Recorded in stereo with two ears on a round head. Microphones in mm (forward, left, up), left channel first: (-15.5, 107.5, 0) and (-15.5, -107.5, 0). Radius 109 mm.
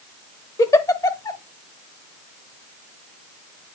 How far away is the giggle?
About 0.9 m.